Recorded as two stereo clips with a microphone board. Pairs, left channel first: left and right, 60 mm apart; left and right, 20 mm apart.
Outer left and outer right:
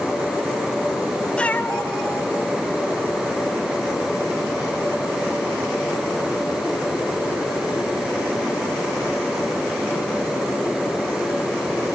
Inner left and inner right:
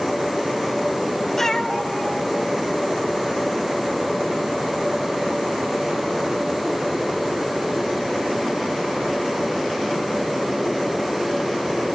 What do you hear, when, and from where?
1.4 s a cat meowing: 15° left (ahead or behind), 0.7 m; by 3.4 s 75° left (ahead or behind), 2.5 m